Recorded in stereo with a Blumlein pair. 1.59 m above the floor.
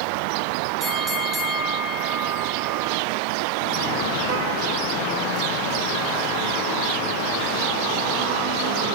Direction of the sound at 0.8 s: 25° right.